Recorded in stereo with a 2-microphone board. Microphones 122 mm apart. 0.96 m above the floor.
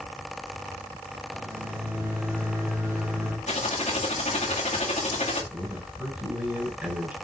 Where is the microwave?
20° right (ahead or behind), 2.5 m.